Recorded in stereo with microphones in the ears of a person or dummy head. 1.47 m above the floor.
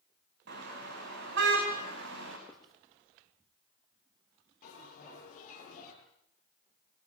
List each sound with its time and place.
0.5 s a car horn: 65° right (ahead or behind), 5 m; by 2.4 s 75° right (ahead or behind), 4.5 m
2.5 s writing: centre (ahead or behind), 2 m
4.6 s a bell: 45° left (ahead or behind), 9.5 m